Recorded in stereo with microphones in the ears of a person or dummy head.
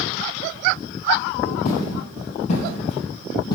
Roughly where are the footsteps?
Left.